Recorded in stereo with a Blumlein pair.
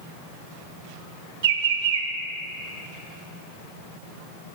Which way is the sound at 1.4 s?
55° right.